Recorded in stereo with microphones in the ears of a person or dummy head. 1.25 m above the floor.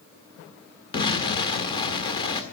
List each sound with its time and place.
0.9 s an explosion: 20° left (ahead or behind), 1.4 m